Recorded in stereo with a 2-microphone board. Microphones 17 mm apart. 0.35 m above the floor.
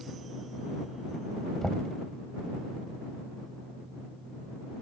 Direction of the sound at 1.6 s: 35° left (ahead or behind).